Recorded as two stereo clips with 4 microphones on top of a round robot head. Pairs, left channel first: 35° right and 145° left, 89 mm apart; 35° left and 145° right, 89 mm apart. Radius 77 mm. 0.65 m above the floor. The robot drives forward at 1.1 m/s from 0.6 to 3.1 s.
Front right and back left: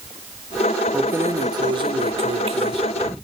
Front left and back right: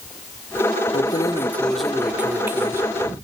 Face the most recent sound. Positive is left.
turn(degrees=160)